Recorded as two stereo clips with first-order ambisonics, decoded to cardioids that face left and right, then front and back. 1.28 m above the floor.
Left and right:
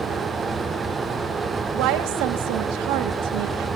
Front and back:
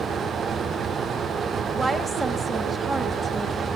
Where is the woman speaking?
100° right, 1.7 m.